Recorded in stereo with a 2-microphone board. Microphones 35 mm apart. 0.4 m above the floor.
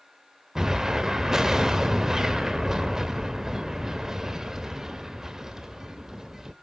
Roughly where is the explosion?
Centre.